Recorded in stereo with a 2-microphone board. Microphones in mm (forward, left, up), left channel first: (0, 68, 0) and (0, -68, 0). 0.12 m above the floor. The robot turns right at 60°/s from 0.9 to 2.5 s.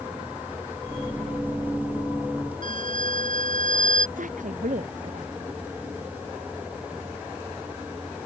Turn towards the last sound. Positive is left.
turn(degrees=-70)  # may be behind; listen again after turning